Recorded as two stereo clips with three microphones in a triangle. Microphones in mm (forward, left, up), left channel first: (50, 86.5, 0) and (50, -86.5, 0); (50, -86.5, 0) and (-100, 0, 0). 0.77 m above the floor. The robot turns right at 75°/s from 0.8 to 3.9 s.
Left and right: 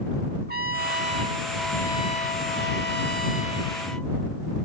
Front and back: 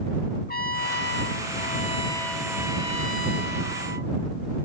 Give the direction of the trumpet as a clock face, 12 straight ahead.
2 o'clock.